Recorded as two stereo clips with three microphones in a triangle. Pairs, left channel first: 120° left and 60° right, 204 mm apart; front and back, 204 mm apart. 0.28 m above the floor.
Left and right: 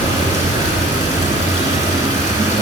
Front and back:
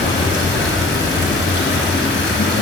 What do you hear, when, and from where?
0.0 s running water: 10° left, 2.0 m